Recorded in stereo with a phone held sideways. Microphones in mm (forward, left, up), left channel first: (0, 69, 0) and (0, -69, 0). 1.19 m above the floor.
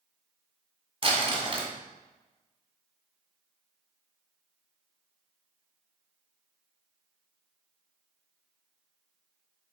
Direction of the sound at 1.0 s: 35° right (ahead or behind).